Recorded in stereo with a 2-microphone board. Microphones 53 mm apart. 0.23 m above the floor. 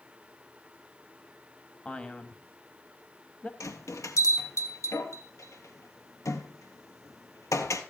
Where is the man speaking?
20° left (ahead or behind), 1.0 m.